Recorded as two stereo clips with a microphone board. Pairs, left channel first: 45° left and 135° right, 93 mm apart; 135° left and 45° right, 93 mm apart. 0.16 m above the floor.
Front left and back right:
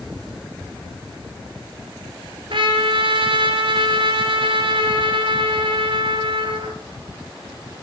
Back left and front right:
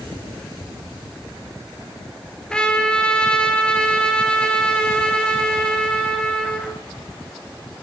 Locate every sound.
2.5 s a trumpet: 145° right, 1.3 m